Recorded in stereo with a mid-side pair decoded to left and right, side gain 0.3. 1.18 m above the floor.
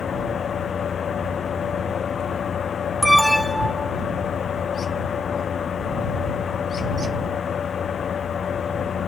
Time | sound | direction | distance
0.0 | a fan | 65° left | ?
3.0 | an alarm | straight ahead | ?